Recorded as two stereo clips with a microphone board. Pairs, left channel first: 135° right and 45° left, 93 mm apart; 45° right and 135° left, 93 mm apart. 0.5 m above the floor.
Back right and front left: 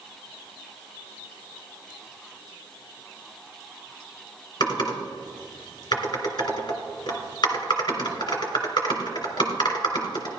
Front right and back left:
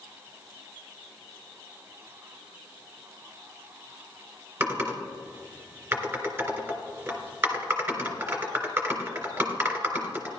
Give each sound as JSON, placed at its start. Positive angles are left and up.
{"t": 4.6, "sound": "typing on a keyboard", "azimuth_deg": -170, "distance_m": 2.5}